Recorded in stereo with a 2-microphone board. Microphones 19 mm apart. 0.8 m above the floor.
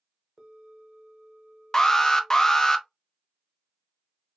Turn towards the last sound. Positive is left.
turn(degrees=25)  # may be behind; listen again after turning